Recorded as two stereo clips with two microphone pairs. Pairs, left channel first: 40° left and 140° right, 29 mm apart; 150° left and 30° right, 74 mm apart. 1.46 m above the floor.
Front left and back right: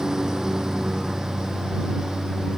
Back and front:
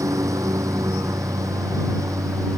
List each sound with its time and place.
0.0 s a lawn mower: 75° right